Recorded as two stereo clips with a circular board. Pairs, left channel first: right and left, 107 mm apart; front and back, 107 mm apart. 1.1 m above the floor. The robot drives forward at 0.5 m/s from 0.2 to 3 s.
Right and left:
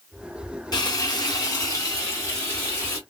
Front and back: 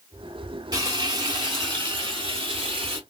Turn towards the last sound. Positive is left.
turn(degrees=-155)